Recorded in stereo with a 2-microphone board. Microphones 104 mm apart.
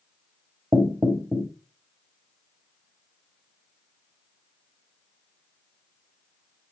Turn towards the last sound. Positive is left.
turn(degrees=-25)  # may be behind; listen again after turning